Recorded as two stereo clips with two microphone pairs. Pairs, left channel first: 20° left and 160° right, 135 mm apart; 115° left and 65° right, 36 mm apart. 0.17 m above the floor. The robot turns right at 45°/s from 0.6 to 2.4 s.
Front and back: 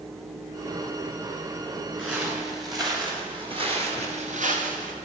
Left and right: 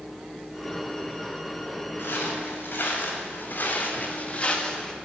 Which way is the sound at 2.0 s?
110° left.